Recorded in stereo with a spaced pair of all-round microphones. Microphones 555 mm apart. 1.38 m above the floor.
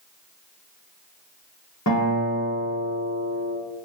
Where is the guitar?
30° left (ahead or behind), 1.0 m.